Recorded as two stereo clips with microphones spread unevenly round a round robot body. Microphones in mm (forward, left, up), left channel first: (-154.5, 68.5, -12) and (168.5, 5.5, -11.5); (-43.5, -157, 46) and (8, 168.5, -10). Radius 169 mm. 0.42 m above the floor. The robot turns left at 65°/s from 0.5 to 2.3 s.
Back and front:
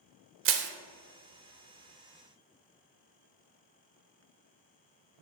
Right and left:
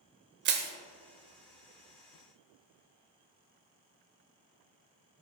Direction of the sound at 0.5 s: 35° left.